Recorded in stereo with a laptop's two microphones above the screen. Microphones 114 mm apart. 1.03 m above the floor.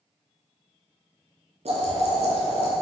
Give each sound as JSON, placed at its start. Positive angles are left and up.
{"t": 1.6, "sound": "boiling", "side_deg": -70, "distance_m": 2.5}